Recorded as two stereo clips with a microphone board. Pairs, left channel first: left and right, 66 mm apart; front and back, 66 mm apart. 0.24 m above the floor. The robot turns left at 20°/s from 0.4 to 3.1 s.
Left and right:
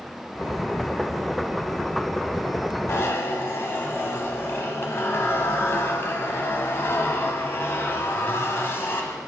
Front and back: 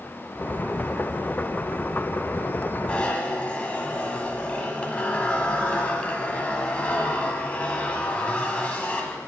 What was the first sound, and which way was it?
A zipper, 65° left.